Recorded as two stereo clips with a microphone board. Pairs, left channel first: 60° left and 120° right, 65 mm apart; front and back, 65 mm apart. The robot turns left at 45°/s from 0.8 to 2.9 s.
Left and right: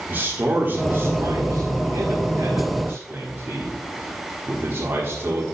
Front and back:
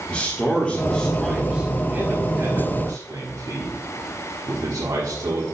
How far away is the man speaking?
About 1.4 m.